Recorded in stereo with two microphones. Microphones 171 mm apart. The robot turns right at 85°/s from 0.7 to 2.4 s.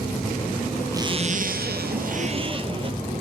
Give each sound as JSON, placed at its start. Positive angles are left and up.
{"t": 0.9, "sound": "a zipper", "azimuth_deg": -160, "distance_m": 1.1}